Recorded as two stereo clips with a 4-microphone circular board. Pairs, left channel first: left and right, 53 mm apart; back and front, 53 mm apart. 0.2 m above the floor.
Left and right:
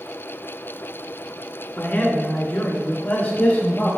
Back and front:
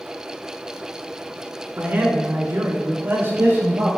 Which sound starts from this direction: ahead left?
A man speaking, at 1.8 s.